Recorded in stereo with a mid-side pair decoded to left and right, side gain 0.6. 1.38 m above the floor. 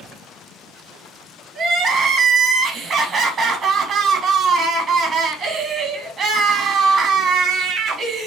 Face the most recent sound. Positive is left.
turn(degrees=-35)